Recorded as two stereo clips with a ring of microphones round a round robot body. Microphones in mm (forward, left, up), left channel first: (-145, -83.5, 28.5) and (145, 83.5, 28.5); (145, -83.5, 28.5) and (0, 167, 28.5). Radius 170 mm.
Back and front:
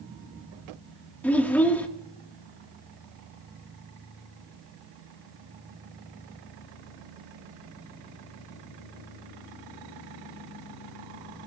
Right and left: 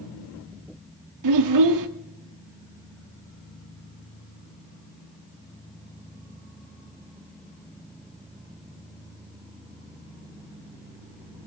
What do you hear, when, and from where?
1.2 s a child speaking: 125° left, 1.4 m